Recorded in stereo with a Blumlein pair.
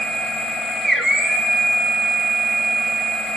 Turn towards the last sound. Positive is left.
turn(degrees=0)